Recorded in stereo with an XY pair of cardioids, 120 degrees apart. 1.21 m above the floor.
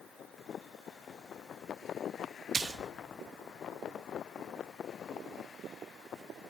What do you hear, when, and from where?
2.5 s a splash: 30° right, 0.7 m